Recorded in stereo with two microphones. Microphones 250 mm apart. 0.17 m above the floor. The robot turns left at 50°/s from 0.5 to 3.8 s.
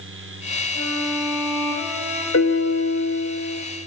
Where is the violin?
60° left, 9 m; by 2.2 s 15° right, 9 m.